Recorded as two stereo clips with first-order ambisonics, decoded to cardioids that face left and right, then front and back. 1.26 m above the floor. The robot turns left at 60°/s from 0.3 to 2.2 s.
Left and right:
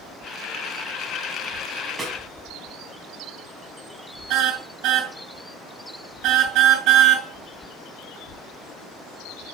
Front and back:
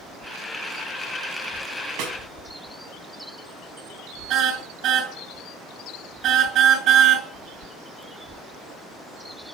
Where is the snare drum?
165° right, 6 m; by 2.2 s 175° right, 6 m.